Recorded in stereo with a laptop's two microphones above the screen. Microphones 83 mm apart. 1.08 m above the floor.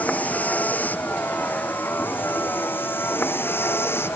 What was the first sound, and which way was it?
A vehicle, 20° left (ahead or behind).